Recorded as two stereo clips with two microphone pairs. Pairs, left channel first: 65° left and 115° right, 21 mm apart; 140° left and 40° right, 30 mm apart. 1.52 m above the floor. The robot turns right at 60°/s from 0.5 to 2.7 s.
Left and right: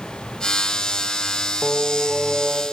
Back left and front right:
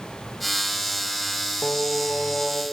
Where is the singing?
105° left, 0.7 m; by 2.6 s 165° left, 0.7 m.